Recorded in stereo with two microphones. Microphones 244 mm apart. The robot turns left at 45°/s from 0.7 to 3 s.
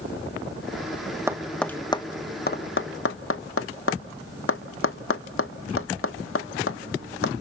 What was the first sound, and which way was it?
Tapping, 10° right (ahead or behind).